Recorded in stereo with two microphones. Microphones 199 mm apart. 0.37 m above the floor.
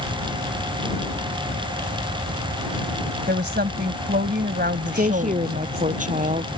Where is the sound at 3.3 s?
55° right (ahead or behind).